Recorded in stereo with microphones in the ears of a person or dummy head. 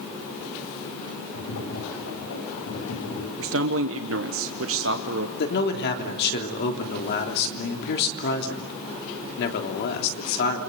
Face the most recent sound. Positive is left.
turn(degrees=60)  # may be behind; listen again after turning